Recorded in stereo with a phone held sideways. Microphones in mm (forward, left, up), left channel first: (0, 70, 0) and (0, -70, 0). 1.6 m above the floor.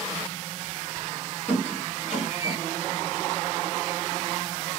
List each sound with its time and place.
1.5 s a squeak: 50° left (ahead or behind), 1.5 m